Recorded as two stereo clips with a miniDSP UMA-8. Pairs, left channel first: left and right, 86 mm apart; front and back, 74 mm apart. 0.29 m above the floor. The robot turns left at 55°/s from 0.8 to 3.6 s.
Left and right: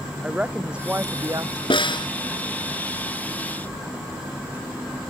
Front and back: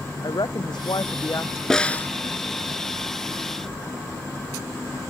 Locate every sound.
0.2 s a woman speaking: 10° right; by 1.6 s 55° right
1.7 s a snare drum: 85° left; by 2.1 s 60° left